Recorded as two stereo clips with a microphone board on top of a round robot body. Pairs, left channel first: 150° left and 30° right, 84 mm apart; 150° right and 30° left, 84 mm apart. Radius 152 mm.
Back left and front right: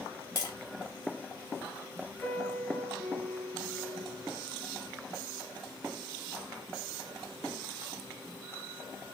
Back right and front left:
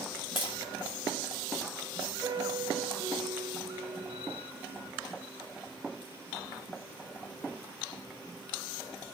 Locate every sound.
0.4 s tapping: 165° right, 3.5 m
2.2 s a piano: 80° left, 2.0 m